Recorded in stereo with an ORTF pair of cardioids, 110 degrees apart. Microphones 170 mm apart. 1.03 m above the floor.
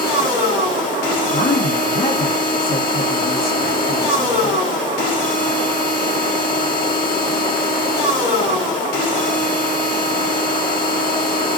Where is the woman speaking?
60° left, 1.1 m.